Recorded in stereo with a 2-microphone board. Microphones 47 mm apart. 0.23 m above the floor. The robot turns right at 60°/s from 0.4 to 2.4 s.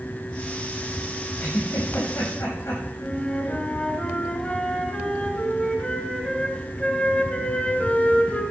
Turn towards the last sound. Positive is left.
turn(degrees=25)  # may be behind; listen again after turning